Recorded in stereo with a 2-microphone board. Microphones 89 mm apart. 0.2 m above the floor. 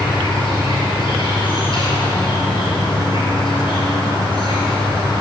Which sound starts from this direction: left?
An insect, at 0.0 s.